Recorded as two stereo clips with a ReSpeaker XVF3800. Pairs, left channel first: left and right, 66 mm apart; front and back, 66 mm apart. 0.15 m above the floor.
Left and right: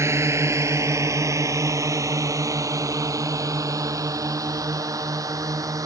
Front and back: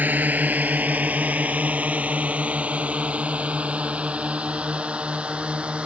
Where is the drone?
120° right; by 5.9 s 110° right.